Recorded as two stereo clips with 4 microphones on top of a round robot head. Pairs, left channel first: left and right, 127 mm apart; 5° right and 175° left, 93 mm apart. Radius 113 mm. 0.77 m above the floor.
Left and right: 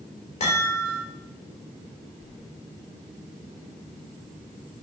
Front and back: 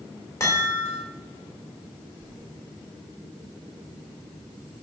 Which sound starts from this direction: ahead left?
A chime, at 0.4 s.